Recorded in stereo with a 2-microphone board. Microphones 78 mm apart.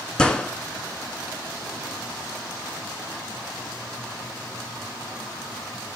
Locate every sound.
0.2 s a gunshot: 10° left (ahead or behind), 1.8 m